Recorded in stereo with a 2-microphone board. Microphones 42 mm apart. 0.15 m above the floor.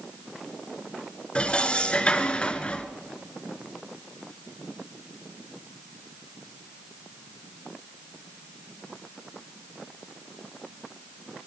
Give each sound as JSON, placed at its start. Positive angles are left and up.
{"t": 1.4, "sound": "dishes clattering", "side_deg": 25, "distance_m": 1.5}